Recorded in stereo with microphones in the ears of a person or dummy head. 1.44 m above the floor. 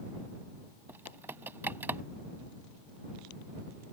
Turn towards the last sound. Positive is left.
turn(degrees=-10)  # may be behind; listen again after turning